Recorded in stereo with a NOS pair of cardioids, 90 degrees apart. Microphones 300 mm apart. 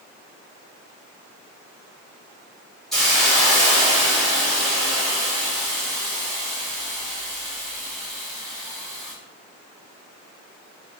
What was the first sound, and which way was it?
A hiss, straight ahead.